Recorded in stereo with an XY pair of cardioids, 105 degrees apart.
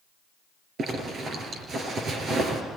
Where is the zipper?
55° right, 5 m.